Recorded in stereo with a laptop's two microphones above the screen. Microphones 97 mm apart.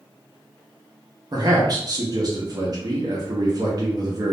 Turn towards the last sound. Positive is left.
turn(degrees=-45)  # may be behind; listen again after turning